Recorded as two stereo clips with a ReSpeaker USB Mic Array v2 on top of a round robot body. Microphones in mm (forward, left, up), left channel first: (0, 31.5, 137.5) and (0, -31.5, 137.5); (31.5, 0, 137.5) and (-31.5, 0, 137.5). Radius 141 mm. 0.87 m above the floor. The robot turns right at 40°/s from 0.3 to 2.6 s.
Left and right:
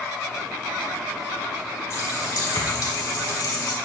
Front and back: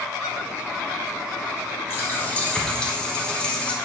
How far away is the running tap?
About 3.5 m.